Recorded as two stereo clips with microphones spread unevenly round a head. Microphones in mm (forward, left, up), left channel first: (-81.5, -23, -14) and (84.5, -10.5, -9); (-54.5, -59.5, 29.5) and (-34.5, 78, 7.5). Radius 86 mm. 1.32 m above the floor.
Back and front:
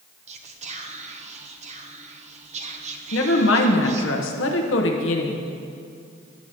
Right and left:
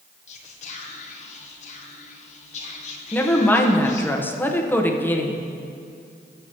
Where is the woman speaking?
Straight behind, 1.1 m.